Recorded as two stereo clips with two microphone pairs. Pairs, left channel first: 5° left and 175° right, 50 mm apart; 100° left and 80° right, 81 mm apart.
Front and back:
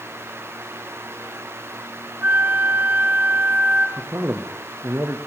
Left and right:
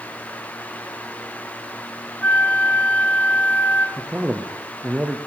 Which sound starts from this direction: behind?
A flute, at 2.2 s.